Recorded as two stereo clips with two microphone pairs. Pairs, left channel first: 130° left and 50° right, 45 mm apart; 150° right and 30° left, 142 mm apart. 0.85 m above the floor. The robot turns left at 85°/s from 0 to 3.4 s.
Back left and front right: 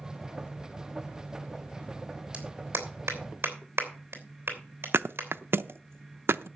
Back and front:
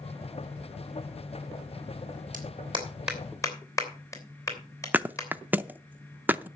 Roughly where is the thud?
Ahead right.